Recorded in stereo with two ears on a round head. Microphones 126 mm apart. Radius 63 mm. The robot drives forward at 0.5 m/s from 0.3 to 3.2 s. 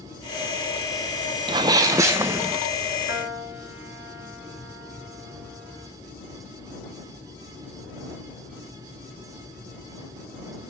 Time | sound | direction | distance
1.5 | a sneeze | 35° right (ahead or behind) | 0.6 m
3.1 | a piano | 15° right (ahead or behind) | 3 m